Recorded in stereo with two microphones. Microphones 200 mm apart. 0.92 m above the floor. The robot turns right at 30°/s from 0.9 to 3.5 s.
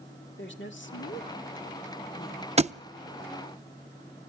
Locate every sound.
0.4 s a woman speaking: 70° left (ahead or behind), 1.9 m; by 2.5 s 25° left (ahead or behind), 1.9 m
2.6 s a thud: 35° right (ahead or behind), 0.5 m